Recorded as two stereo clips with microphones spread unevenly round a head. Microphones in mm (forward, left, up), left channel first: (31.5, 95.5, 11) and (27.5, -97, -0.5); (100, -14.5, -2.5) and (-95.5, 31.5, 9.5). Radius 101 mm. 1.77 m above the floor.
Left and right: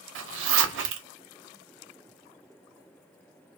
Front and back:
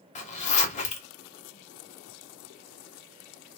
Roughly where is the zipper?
Right.